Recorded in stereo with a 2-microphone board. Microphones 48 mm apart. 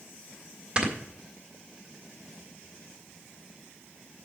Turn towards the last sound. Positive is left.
turn(degrees=-25)  # may be behind; listen again after turning